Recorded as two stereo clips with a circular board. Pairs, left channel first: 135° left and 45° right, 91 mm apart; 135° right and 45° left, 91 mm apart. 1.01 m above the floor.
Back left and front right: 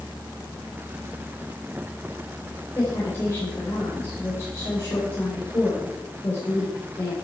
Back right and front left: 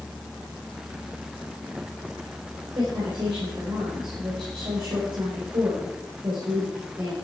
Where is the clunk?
No clunk in this recording.